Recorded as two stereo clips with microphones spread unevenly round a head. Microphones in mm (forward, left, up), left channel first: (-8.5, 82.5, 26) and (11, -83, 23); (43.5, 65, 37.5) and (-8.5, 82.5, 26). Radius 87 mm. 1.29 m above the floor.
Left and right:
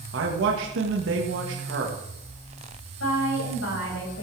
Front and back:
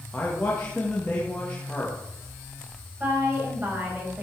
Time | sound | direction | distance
0.1 | a man speaking | 95° right | 1.5 m
3.0 | a woman speaking | 105° left | 6.5 m